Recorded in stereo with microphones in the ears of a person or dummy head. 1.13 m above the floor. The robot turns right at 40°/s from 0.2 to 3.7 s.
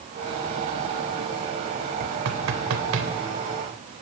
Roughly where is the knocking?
Right.